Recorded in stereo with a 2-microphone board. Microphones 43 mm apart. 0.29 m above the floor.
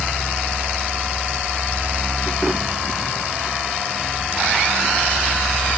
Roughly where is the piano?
No piano in this recording.